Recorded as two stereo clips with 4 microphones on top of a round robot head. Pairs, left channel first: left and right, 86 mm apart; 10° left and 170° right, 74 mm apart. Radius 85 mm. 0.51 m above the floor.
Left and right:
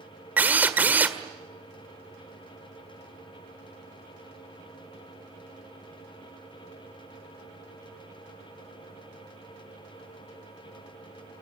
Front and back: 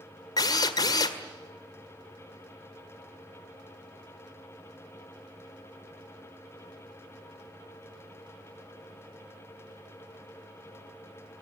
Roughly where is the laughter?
No laughter in this recording.